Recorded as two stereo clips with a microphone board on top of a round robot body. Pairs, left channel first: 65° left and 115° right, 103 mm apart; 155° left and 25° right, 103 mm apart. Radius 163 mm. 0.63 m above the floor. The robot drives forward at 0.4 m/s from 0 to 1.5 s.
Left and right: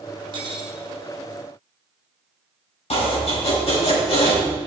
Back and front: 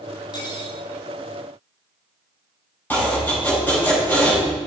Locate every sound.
0.3 s cutlery clinking: 155° right, 2 m; by 0.8 s 160° right, 2.5 m
2.9 s chopping: 85° left, 4.5 m